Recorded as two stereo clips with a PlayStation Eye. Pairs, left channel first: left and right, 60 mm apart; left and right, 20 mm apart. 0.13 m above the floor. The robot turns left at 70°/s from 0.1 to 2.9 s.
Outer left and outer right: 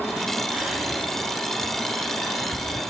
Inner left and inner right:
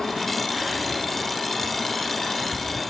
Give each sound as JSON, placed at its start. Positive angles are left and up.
{"t": 0.5, "sound": "whispering", "side_deg": -20, "distance_m": 2.5}